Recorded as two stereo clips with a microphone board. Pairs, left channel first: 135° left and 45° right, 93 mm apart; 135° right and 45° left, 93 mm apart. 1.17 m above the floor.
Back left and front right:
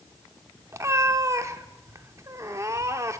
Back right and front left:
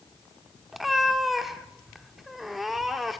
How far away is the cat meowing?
About 0.8 m.